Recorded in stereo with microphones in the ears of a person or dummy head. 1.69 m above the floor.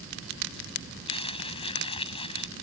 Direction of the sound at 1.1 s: 25° left (ahead or behind).